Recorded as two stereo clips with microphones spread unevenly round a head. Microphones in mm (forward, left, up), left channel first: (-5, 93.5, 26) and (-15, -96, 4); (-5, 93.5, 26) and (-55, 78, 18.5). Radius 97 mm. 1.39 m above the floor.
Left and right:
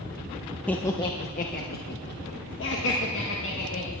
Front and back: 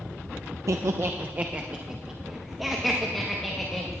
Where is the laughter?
170° left, 0.6 m; by 4.0 s 100° left, 1.9 m.